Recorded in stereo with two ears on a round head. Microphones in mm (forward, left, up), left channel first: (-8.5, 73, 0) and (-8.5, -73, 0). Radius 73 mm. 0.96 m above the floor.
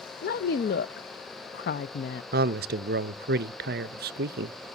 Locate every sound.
0.2 s a woman speaking: 60° left (ahead or behind), 0.5 m
2.3 s a man speaking: 60° right (ahead or behind), 0.5 m